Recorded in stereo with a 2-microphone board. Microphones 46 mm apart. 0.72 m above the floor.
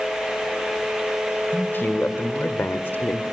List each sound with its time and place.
1.5 s a man speaking: 50° left (ahead or behind), 2.5 m; by 3.2 s 55° left (ahead or behind), 1.4 m